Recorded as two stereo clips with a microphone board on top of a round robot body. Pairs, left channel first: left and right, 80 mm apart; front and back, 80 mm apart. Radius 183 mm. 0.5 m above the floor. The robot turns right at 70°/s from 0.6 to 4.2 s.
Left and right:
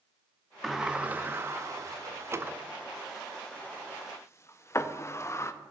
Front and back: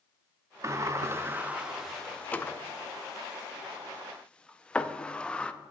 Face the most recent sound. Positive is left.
turn(degrees=70)